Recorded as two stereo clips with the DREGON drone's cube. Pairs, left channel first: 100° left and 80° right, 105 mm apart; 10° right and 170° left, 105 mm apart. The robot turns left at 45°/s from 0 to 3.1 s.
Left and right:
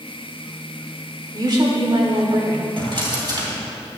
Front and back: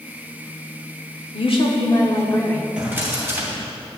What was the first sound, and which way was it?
A woman speaking, 30° right.